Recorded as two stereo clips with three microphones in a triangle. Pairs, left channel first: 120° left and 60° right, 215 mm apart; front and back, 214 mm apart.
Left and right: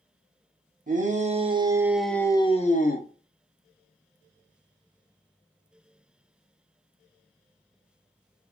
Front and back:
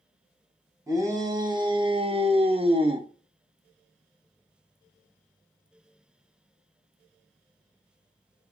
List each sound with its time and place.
0.9 s a shout: 105° right, 0.9 m; by 3.1 s 120° left, 0.7 m